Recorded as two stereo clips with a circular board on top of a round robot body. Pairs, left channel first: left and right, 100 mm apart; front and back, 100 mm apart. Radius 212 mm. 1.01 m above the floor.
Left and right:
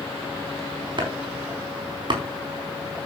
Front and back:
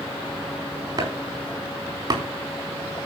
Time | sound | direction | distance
1.0 | chopping | 130° right | 4 m